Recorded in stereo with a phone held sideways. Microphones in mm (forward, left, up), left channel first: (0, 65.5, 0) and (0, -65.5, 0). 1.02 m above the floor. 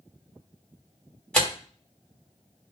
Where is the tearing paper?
10° left (ahead or behind), 1.7 m.